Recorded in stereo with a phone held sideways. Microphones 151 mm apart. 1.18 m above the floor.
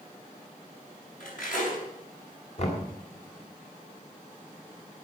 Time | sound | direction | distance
1.2 | cutlery clinking | 65° left (ahead or behind) | 5.5 m
2.6 | knocking | 50° left (ahead or behind) | 3 m